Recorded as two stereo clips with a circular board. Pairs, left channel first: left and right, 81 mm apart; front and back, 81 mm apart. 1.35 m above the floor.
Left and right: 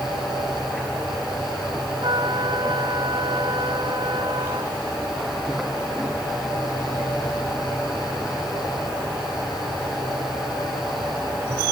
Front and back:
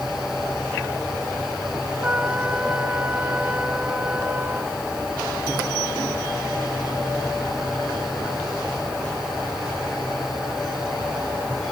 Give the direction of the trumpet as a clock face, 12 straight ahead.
4 o'clock.